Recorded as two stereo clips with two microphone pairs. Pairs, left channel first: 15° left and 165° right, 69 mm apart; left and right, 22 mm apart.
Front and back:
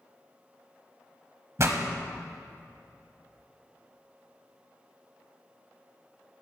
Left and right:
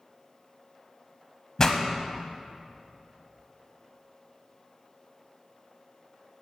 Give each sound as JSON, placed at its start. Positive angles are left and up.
{"t": 1.6, "sound": "a pop", "azimuth_deg": 150, "distance_m": 1.1}